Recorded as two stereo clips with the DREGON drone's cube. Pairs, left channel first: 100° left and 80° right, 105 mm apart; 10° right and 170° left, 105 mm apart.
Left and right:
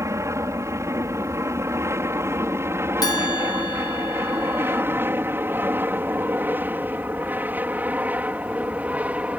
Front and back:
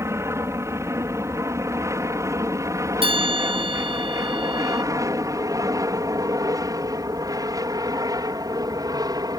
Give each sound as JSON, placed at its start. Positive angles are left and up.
{"t": 0.0, "sound": "an aircraft", "azimuth_deg": -135}
{"t": 3.0, "sound": "a bell", "azimuth_deg": 145}